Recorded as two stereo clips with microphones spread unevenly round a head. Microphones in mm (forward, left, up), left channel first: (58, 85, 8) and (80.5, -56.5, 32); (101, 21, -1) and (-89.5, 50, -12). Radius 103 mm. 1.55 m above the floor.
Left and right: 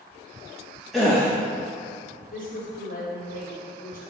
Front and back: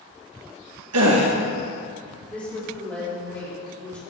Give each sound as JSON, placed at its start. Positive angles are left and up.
{"t": 0.9, "sound": "a gasp", "azimuth_deg": -170, "distance_m": 1.8}
{"t": 2.3, "sound": "a woman speaking", "azimuth_deg": 70, "distance_m": 3.5}